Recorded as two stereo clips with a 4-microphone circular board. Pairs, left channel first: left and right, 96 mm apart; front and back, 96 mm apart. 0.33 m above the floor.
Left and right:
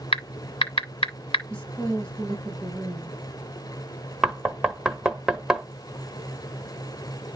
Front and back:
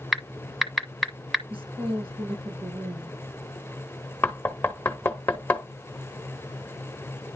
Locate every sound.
0.1 s typing on a keyboard: 90° left, 1.1 m
1.5 s a woman speaking: 165° left, 6 m
4.2 s knocking: 15° right, 0.9 m